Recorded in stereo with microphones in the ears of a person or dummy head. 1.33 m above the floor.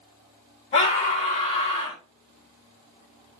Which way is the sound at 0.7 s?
25° left (ahead or behind).